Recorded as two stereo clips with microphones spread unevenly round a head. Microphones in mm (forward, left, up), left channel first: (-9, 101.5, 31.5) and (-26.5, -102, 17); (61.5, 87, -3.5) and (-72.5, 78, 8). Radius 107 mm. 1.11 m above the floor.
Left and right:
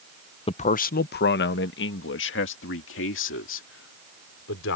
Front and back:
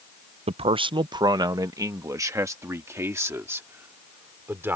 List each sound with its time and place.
0.5 s a man speaking: 145° left; by 4.8 s 110° left